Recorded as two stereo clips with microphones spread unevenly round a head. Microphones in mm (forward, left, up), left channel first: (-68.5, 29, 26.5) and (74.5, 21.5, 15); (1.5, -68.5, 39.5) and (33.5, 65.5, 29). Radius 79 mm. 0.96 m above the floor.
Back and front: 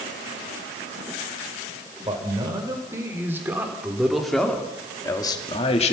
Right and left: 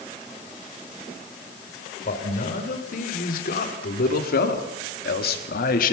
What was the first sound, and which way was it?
A man speaking, 70° right.